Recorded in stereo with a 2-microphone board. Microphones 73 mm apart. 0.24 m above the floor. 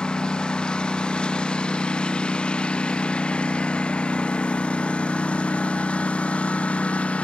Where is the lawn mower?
10° left (ahead or behind); by 7.2 s 15° left (ahead or behind).